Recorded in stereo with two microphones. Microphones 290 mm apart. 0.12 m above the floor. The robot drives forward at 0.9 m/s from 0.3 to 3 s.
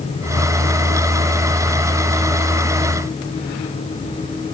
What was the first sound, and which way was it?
Only background noise.